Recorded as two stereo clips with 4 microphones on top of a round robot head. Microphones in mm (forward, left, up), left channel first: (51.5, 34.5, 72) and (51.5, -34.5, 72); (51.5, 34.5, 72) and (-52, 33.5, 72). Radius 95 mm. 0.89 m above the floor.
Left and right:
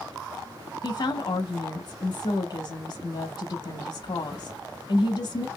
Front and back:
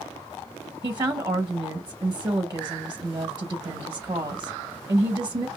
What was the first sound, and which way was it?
A woman speaking, 130° left.